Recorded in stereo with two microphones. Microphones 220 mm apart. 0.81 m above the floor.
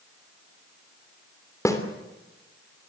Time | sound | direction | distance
1.6 | a snare drum | 15° left (ahead or behind) | 3 m